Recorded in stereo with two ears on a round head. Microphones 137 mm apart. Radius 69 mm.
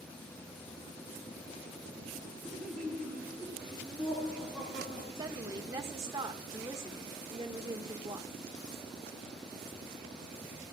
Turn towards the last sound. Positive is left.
turn(degrees=-20)  # may be behind; listen again after turning